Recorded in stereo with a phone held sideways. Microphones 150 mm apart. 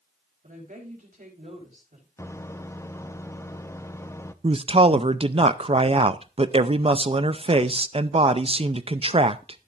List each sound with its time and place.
0.4 s a woman speaking: 65° right (ahead or behind), 4 m
2.2 s a microwave: 20° left (ahead or behind), 0.5 m
4.4 s a man speaking: 40° right (ahead or behind), 0.5 m